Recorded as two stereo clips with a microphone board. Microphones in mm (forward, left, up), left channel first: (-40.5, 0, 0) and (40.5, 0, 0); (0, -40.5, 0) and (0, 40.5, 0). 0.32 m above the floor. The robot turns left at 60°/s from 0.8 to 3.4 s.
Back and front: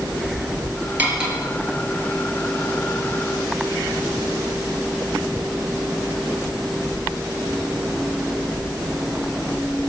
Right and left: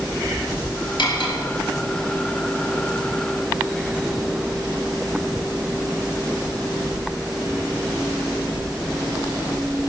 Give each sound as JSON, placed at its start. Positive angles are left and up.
{"t": 1.0, "sound": "cutlery clinking", "azimuth_deg": -65, "distance_m": 3.5}